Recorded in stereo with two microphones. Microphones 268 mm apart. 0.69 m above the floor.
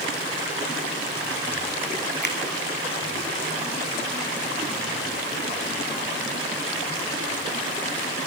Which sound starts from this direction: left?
A finger snap, at 2.2 s.